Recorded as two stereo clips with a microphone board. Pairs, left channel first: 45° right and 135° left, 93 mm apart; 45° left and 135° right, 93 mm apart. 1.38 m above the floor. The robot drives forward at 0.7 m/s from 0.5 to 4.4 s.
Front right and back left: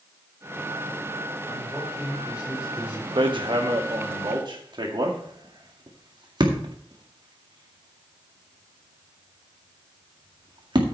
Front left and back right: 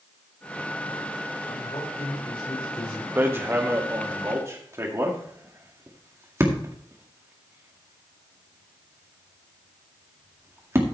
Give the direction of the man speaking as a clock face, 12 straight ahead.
10 o'clock.